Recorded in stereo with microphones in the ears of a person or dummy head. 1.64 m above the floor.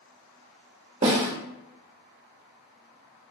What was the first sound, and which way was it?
A snare drum, 35° right (ahead or behind).